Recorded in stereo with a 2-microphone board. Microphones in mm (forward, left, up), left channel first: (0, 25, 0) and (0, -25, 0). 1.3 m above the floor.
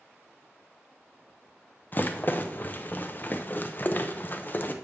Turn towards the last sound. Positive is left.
turn(degrees=40)  # may be behind; listen again after turning